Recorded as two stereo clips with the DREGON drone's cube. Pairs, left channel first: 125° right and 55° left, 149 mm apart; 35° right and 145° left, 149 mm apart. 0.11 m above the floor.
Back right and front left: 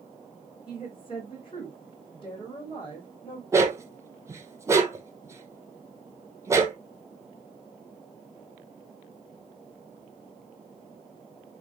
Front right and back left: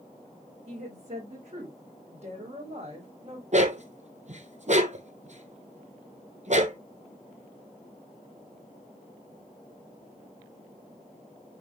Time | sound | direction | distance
0.7 | a woman speaking | 175° right | 5.5 m
3.5 | a dog barking | 125° left | 1.2 m